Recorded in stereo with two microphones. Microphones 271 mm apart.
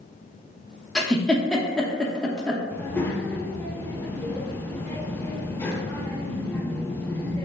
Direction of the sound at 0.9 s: 5° left (ahead or behind).